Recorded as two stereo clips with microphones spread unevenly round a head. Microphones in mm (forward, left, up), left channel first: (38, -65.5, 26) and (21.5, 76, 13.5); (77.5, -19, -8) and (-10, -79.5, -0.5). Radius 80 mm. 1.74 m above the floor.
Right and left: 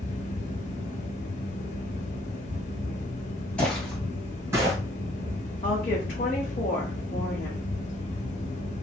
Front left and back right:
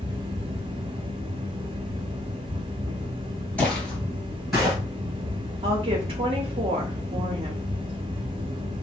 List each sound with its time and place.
0.0 s a fan: 115° right, 0.7 m
3.6 s footsteps: 30° right, 1.8 m; by 4.8 s 145° left, 1.8 m
5.6 s a woman speaking: 125° right, 0.8 m